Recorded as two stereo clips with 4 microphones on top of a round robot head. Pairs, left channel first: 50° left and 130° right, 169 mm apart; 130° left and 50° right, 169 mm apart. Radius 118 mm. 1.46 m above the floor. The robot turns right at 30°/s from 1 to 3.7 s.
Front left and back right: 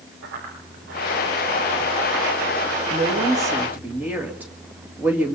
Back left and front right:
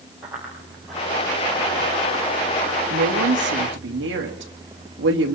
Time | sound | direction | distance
0.2 | running footsteps | 135° right | 9 m
2.9 | a woman speaking | 75° right | 2.5 m